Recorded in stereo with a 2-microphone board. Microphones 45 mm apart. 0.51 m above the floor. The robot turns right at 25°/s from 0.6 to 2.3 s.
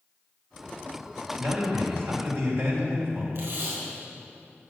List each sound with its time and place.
1.4 s a man speaking: 65° right (ahead or behind), 2.5 m; by 3.2 s 60° right (ahead or behind), 2.5 m
3.4 s tape being pulled: 70° right (ahead or behind), 4 m